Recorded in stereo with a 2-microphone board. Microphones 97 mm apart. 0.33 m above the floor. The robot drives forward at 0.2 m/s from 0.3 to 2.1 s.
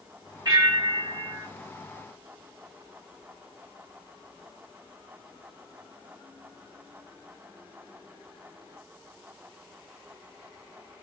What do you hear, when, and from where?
0.5 s a bell: 40° right (ahead or behind), 1.2 m